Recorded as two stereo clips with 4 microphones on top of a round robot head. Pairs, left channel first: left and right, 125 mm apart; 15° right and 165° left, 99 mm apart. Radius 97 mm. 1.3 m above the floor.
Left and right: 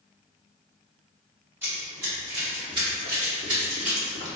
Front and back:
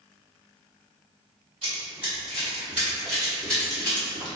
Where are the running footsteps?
155° right, 1.5 m; by 4.3 s 85° right, 1.9 m.